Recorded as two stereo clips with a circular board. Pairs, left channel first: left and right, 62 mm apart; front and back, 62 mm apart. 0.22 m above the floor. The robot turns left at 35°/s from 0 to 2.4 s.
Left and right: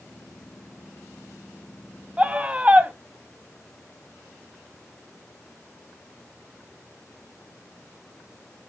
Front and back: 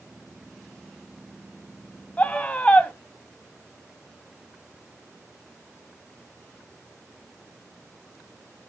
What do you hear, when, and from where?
2.2 s a scream: 40° right, 1.2 m; by 2.9 s 50° right, 1.2 m